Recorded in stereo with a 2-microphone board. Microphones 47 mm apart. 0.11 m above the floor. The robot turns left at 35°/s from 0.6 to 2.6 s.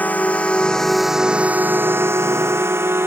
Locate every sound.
0.0 s a drone: 40° left (ahead or behind); by 3.1 s 70° right (ahead or behind)